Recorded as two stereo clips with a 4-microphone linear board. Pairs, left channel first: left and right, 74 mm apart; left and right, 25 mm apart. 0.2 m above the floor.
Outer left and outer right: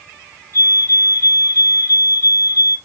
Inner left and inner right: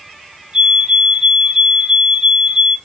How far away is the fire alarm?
About 5.5 m.